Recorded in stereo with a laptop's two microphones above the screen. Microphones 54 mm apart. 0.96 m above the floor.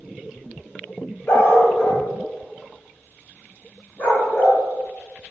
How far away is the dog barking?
About 1.9 m.